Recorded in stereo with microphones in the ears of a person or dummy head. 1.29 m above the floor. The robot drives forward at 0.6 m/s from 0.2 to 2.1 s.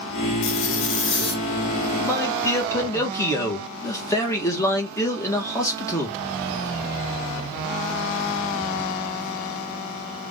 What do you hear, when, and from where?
0.4 s a zipper: 70° left (ahead or behind), 0.7 m; by 1.4 s 55° left (ahead or behind), 0.8 m
2.0 s a man speaking: 15° left (ahead or behind), 1.5 m